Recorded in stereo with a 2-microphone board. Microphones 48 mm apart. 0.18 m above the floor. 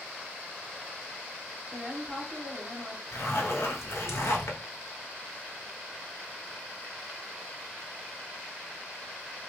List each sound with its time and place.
1.7 s a woman speaking: 25° right (ahead or behind), 1.4 m
3.1 s a zipper: 70° left (ahead or behind), 1.0 m